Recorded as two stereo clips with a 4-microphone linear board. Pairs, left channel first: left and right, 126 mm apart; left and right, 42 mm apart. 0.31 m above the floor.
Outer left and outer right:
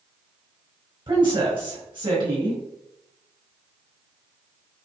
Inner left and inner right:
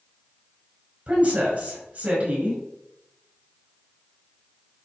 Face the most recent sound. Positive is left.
turn(degrees=-40)  # may be behind; listen again after turning